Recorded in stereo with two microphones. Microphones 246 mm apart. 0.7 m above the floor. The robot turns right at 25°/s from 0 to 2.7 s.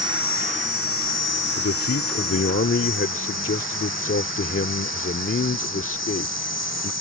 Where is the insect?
165° right; by 7.0 s 95° right.